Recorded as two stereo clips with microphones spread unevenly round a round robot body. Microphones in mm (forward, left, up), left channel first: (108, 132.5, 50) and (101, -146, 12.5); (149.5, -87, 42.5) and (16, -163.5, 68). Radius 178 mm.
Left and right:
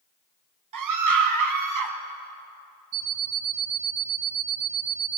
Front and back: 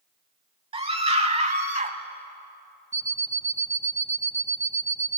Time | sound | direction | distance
0.7 | a scream | 95° right | 3 m
2.9 | an alarm clock | 100° right | 1.5 m